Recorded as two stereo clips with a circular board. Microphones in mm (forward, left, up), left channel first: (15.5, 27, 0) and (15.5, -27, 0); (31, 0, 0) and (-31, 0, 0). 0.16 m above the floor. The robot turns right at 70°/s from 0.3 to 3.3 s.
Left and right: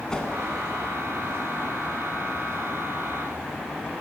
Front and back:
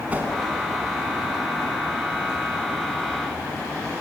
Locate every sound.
0.1 s a whoosh: 150° left, 1.5 m